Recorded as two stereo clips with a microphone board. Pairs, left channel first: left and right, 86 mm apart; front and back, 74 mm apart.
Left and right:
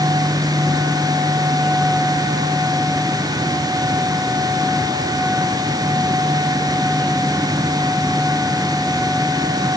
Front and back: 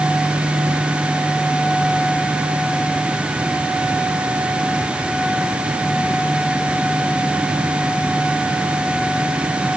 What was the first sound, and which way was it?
Only background noise.